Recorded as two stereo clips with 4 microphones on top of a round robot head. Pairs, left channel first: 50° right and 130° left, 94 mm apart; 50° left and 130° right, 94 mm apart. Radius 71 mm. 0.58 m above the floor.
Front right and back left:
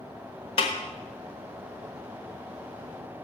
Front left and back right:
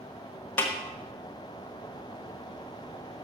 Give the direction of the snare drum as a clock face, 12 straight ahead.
1 o'clock.